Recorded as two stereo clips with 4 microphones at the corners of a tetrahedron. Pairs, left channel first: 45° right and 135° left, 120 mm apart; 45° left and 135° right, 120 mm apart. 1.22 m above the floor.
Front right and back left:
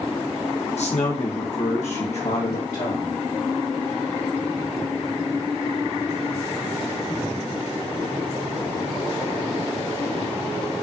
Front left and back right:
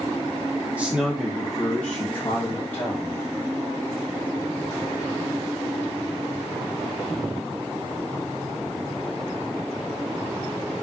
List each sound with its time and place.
0.8 s a man speaking: 55° right, 1.5 m; by 3.1 s 20° right, 2.5 m